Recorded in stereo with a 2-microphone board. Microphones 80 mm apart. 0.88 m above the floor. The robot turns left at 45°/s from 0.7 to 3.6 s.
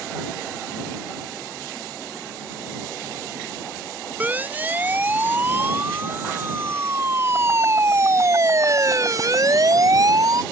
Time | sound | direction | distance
4.2 | a siren | 20° right (ahead or behind) | ?